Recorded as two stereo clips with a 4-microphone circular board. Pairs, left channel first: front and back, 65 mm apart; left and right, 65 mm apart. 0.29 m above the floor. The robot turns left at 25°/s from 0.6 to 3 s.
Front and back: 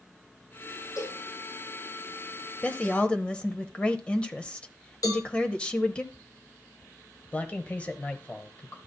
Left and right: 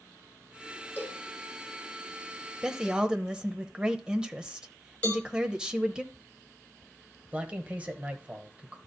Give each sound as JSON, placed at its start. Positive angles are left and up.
{"t": 1.0, "sound": "a cowbell", "azimuth_deg": 30, "distance_m": 4.5}
{"t": 2.6, "sound": "a woman speaking", "azimuth_deg": -30, "distance_m": 0.9}
{"t": 5.0, "sound": "a cowbell", "azimuth_deg": 20, "distance_m": 3.0}
{"t": 7.3, "sound": "a man speaking", "azimuth_deg": -45, "distance_m": 1.3}